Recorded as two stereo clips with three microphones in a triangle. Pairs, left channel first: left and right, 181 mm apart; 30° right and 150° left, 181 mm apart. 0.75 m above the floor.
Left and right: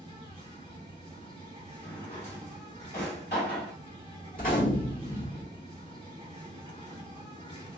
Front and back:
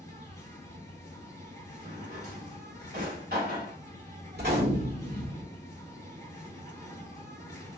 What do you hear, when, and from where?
0.0 s an insect: 80° right, 1.8 m
1.8 s a drawer: 120° left, 1.6 m
4.3 s a gunshot: 125° left, 1.5 m